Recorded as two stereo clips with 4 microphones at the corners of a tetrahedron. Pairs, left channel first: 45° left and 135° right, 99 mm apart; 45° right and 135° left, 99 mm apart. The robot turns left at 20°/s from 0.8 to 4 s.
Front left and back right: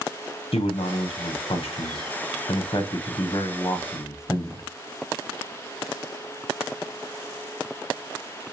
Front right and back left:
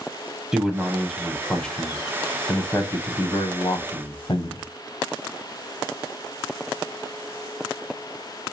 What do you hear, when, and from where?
0.5 s a man speaking: 50° left, 0.5 m; by 4.6 s 15° right, 0.5 m